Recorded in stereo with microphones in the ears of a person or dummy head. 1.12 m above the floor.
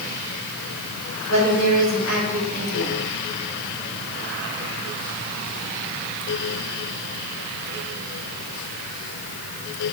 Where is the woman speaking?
70° left (ahead or behind), 3 m.